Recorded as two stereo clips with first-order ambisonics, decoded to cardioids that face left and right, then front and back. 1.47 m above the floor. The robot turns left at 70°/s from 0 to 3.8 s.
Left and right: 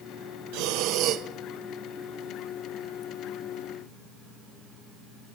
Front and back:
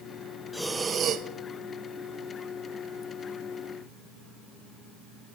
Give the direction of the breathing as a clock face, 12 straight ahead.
3 o'clock.